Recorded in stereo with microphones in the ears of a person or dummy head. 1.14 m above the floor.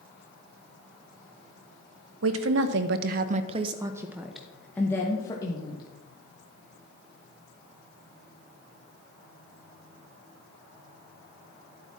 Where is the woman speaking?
80° right, 0.9 m; by 5.8 s 20° left (ahead or behind), 1.4 m.